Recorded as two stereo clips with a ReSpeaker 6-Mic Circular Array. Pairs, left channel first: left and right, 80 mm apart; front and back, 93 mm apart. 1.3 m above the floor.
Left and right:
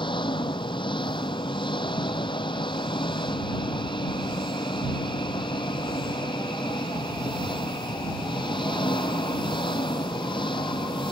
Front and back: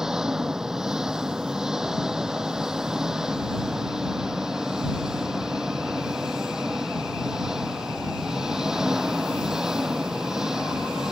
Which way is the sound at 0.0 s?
95° left.